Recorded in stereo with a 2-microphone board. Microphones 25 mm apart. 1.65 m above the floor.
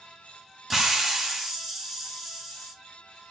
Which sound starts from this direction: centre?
A hiss, at 0.7 s.